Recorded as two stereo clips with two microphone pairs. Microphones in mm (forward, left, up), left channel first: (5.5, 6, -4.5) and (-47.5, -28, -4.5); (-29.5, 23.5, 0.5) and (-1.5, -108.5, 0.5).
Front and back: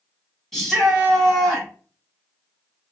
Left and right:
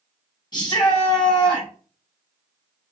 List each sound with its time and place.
0.5 s a shout: 115° left, 1.0 m